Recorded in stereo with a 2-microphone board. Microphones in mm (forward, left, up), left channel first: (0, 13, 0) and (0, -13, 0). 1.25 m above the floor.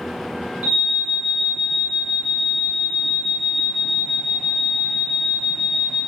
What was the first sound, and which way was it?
An alarm, 70° right (ahead or behind).